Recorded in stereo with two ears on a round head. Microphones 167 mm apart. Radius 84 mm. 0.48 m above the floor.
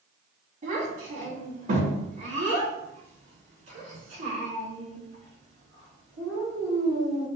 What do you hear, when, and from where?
0.6 s a child speaking: 40° right (ahead or behind), 3.5 m